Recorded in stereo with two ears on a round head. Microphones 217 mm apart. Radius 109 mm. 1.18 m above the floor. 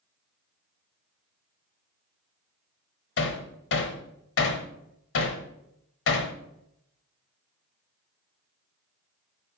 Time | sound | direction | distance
3.2 | hammering | 55° left (ahead or behind) | 1.3 m